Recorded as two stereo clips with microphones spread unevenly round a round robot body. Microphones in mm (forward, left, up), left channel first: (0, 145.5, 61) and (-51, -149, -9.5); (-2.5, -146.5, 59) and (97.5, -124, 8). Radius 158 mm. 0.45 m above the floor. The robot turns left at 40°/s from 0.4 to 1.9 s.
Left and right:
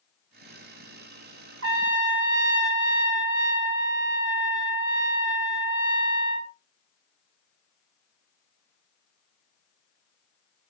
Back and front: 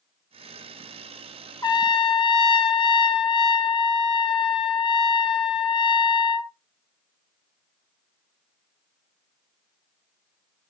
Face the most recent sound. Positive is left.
turn(degrees=-115)